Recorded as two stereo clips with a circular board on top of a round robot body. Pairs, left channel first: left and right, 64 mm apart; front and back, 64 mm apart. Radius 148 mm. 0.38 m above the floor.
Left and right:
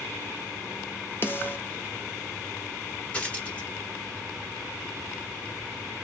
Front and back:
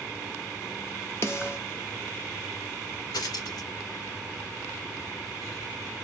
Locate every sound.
1.2 s a snare drum: 40° left, 1.4 m
3.1 s a dropped coin: 20° left, 1.6 m